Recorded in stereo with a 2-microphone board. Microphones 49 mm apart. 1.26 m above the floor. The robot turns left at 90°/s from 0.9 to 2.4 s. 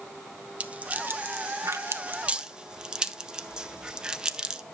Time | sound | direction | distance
0.6 | a rattle | 30° right (ahead or behind) | 0.6 m